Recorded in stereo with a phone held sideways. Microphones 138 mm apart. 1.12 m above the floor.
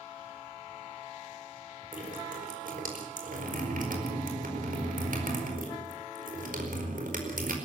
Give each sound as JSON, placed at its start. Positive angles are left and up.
{"t": 1.9, "sound": "dripping", "side_deg": -85, "distance_m": 4.5}